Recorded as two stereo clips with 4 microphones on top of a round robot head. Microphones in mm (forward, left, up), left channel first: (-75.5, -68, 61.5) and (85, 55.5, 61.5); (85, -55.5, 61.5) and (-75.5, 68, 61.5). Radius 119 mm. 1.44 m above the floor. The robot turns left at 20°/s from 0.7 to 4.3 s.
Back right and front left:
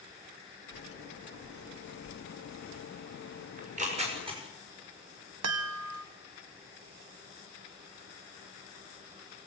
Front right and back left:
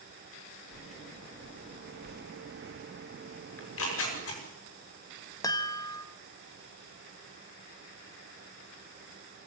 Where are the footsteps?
125° right, 2.5 m; by 3.4 s 135° left, 2.5 m.